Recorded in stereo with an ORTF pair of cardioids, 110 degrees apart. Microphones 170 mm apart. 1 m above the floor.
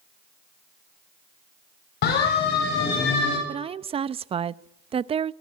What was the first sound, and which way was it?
A siren, 70° left.